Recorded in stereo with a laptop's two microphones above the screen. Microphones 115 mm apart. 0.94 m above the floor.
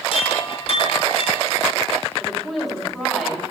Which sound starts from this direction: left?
A chime, at 0.1 s.